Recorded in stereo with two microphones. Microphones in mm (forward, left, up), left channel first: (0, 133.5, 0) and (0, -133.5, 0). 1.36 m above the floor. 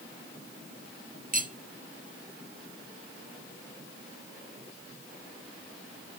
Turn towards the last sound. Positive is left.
turn(degrees=-30)  # may be behind; listen again after turning